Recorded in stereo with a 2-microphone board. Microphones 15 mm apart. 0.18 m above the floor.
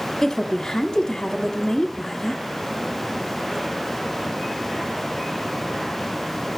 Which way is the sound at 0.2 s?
25° left (ahead or behind).